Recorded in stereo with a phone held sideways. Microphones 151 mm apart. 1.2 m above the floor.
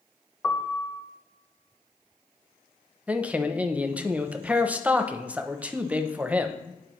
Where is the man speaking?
10° right (ahead or behind), 0.5 m.